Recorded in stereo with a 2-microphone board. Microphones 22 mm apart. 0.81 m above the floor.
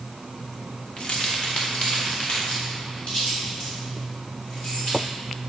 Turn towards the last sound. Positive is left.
turn(degrees=65)  # may be behind; listen again after turning